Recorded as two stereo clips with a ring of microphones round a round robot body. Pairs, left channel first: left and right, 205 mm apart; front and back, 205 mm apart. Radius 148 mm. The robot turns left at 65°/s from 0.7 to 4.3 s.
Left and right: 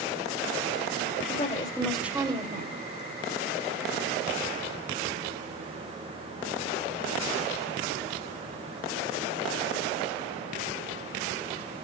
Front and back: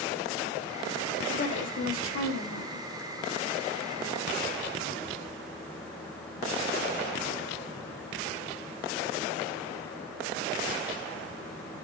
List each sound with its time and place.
1.3 s a woman speaking: 45° left, 2.5 m; by 2.8 s 55° right, 2.5 m